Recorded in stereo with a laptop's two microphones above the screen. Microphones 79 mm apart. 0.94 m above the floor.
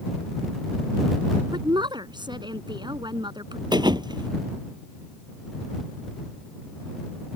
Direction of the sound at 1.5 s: 70° right (ahead or behind).